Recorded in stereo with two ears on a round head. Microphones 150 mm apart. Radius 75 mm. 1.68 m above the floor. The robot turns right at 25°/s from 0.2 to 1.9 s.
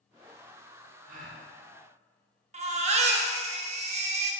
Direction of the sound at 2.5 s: 40° right (ahead or behind).